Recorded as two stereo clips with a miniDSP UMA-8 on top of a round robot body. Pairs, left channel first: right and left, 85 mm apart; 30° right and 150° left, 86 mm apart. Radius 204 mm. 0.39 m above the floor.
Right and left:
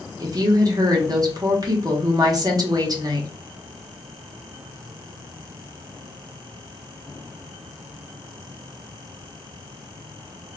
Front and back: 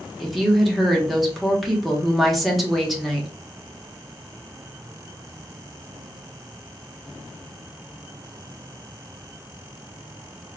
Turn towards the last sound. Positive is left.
turn(degrees=60)